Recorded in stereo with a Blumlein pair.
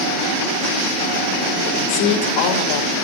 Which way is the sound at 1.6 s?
45° left.